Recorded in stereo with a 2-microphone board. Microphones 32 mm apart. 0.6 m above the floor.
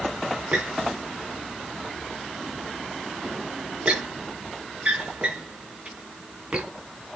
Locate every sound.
0.5 s a squeak: 35° right (ahead or behind), 2.5 m